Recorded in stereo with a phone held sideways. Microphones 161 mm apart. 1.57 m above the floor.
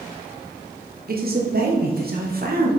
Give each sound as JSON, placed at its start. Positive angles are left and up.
{"t": 1.1, "sound": "a man speaking", "side_deg": -60, "distance_m": 1.1}